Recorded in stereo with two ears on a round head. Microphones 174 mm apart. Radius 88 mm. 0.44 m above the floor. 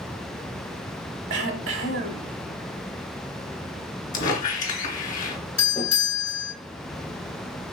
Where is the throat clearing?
65° right (ahead or behind), 1.0 m.